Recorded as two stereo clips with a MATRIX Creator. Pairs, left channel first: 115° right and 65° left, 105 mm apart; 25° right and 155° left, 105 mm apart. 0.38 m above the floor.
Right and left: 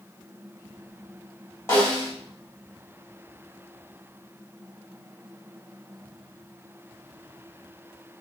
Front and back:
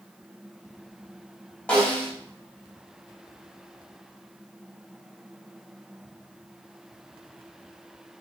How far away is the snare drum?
About 1.1 m.